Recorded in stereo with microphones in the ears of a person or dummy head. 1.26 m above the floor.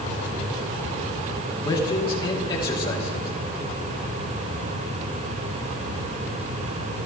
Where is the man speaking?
25° left (ahead or behind), 2.5 m.